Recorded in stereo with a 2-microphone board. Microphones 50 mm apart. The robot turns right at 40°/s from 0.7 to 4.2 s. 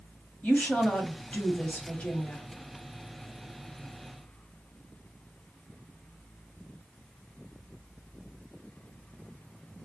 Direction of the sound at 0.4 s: 25° left (ahead or behind).